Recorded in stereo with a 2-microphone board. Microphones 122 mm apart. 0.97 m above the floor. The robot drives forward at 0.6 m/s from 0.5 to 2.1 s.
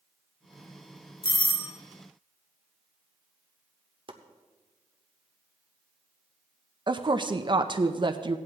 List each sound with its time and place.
1.2 s a doorbell: 40° left (ahead or behind), 1.1 m
4.1 s chopping: 45° right (ahead or behind), 1.0 m
6.9 s a woman speaking: 40° right (ahead or behind), 0.5 m